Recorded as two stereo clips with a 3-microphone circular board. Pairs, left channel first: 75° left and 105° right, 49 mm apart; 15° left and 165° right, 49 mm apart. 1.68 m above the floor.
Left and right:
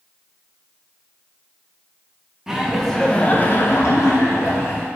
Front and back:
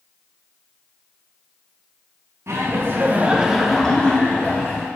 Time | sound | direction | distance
2.5 | laughter | 175° left | 0.8 m